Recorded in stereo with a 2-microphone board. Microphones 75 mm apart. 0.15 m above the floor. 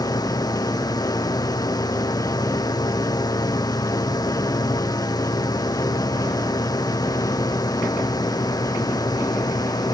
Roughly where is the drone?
Left.